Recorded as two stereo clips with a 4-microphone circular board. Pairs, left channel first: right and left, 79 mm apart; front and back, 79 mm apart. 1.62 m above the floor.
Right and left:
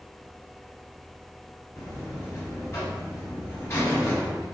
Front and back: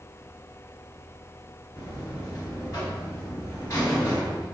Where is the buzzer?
40° right, 1.7 m.